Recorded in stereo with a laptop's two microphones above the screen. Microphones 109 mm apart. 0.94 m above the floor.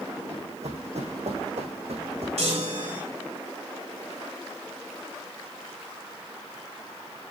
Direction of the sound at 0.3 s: 75° right (ahead or behind).